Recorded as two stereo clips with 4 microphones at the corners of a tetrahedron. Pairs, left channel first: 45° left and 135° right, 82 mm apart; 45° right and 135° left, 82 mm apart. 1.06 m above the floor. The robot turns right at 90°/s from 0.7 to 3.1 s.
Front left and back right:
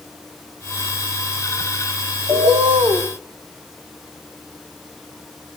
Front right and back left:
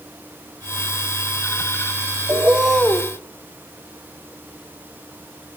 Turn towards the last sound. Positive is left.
turn(degrees=-95)